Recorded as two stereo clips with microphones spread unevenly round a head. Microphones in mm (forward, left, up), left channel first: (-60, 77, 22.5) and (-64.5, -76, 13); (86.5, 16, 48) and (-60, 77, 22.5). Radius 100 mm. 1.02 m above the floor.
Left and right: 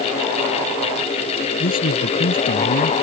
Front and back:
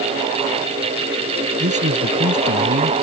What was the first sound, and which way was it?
A man speaking, 115° left.